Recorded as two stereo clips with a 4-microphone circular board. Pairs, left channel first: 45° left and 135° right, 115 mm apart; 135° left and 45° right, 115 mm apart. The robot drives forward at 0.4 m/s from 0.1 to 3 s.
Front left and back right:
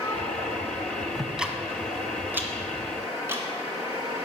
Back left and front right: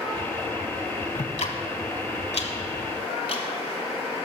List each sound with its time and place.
1.1 s ticking: 135° left, 0.9 m; by 3.4 s 155° left, 1.5 m